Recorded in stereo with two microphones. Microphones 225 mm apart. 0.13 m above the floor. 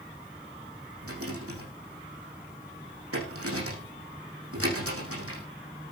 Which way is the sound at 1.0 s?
75° right (ahead or behind).